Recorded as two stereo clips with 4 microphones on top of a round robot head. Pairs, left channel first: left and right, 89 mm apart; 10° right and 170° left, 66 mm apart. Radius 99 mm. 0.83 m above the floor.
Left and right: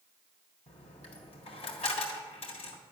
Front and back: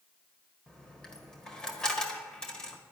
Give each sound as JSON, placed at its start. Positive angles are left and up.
{"t": 0.7, "sound": "a dropped coin", "azimuth_deg": 70, "distance_m": 1.6}